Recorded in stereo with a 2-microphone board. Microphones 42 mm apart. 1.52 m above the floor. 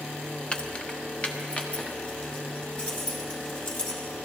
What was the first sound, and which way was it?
Keys jangling, 25° left (ahead or behind).